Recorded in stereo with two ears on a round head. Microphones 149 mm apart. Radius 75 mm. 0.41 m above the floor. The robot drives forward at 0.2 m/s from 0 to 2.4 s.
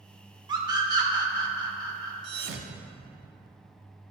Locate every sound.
0.5 s a scream: 25° right (ahead or behind), 0.8 m
2.2 s a thud: 75° right (ahead or behind), 0.5 m; by 3.3 s 70° right (ahead or behind), 0.6 m